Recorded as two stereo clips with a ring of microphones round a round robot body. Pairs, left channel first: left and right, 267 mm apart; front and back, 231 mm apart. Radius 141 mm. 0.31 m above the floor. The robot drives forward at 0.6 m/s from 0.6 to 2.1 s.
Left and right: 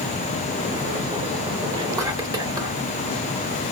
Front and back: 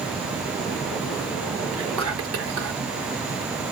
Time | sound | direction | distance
1.7 | whispering | 165° right | 3 m